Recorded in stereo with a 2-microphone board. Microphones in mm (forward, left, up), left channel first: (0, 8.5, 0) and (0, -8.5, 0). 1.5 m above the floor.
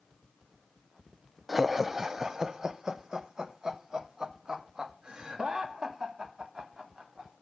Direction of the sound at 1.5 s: 10° right (ahead or behind).